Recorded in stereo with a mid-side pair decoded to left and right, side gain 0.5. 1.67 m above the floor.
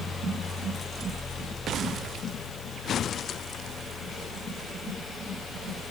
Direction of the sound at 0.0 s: 35° left.